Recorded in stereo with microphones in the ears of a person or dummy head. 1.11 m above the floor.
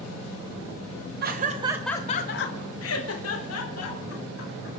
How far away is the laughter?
About 0.9 m.